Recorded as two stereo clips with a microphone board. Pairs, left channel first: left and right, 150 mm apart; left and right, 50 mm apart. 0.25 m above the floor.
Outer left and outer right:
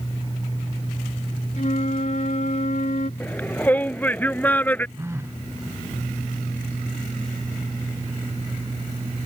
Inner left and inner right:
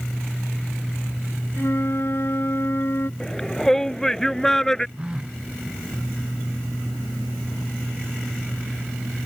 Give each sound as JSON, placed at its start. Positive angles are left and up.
{"t": 1.6, "sound": "a flute", "side_deg": 55}
{"t": 3.2, "sound": "a shout", "side_deg": 10}
{"t": 5.0, "sound": "a phone buzzing", "side_deg": -20}